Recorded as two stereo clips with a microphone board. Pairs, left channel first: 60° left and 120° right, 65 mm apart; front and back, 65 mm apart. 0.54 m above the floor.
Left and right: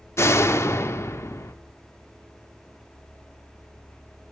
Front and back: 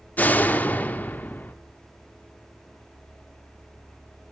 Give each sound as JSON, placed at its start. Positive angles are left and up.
{"t": 0.2, "sound": "a door slam", "azimuth_deg": 50, "distance_m": 0.8}